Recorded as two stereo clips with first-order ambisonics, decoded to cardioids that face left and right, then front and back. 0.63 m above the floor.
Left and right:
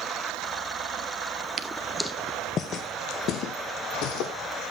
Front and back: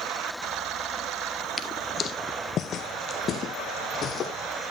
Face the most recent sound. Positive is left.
turn(degrees=65)